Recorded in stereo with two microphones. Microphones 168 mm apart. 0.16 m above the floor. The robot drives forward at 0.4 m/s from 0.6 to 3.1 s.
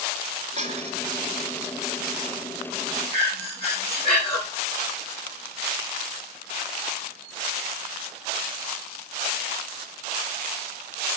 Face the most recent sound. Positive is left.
turn(degrees=35)  # may be behind; listen again after turning